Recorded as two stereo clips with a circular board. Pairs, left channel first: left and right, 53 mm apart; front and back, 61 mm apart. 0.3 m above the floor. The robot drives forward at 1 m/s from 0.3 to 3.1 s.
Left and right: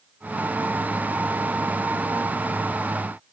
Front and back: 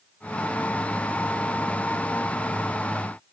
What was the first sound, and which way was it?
Only background noise.